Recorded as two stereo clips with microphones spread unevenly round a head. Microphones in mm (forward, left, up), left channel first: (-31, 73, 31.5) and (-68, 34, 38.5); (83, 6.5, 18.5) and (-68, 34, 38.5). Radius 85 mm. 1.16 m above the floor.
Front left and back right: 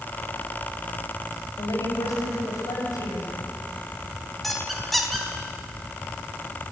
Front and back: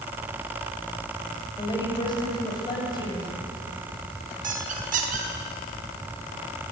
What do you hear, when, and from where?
1.6 s a woman speaking: 50° left, 7 m
4.4 s a squeak: 135° left, 4.5 m